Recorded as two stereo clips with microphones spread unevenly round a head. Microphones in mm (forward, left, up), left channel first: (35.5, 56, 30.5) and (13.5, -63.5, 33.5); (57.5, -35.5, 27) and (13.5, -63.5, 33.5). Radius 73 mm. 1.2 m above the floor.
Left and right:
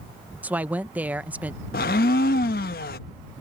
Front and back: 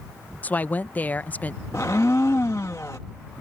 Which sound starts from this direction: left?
A blender, at 1.7 s.